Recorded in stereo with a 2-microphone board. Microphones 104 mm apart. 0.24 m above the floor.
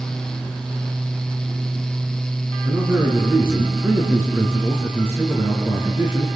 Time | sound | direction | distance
2.6 | a man speaking | 20° right (ahead or behind) | 3.5 m